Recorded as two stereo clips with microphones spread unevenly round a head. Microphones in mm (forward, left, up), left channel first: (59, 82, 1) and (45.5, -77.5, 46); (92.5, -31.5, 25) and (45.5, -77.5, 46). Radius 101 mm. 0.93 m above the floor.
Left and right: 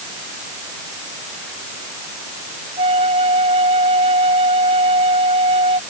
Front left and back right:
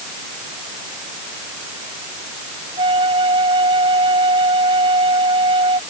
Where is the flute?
160° right.